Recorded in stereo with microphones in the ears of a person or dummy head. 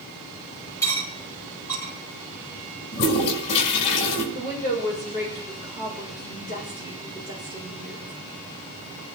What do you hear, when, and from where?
0.8 s cutlery clinking: 15° left (ahead or behind), 2 m
2.9 s a toilet flushing: 65° left (ahead or behind), 5.5 m
4.3 s a woman speaking: 40° left (ahead or behind), 7.5 m